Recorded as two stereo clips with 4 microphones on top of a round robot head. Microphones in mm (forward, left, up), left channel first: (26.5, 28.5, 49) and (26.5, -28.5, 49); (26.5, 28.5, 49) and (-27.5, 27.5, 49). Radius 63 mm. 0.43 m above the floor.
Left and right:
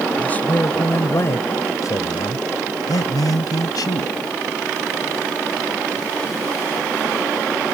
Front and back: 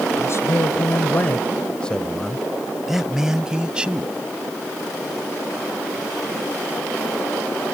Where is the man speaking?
25° left; by 4.2 s 110° left.